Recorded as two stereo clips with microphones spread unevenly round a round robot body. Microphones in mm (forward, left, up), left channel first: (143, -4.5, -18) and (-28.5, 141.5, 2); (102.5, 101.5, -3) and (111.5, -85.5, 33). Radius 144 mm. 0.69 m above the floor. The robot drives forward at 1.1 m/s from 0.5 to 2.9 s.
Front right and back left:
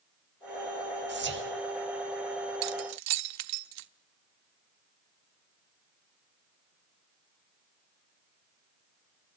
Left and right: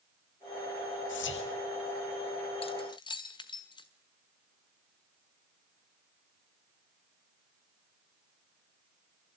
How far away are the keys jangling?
About 0.7 m.